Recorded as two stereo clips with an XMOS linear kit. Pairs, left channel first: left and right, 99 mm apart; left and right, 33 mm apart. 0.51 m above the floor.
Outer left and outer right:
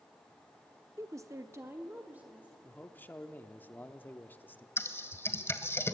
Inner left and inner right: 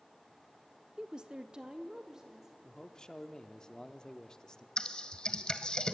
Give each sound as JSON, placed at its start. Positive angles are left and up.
{"t": 1.0, "sound": "a woman speaking", "side_deg": -30, "distance_m": 0.7}
{"t": 2.6, "sound": "a man speaking", "side_deg": 20, "distance_m": 0.8}
{"t": 4.8, "sound": "typing on a keyboard", "side_deg": 25, "distance_m": 1.2}